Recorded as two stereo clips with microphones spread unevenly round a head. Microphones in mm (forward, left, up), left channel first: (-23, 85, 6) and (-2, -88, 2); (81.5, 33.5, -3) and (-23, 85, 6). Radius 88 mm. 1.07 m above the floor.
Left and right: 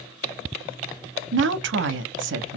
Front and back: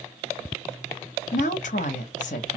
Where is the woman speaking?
60° right, 0.5 m.